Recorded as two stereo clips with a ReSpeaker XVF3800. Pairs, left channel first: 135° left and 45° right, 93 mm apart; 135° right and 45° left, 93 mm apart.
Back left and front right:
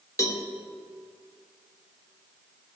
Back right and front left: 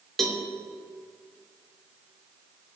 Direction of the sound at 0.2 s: 145° left.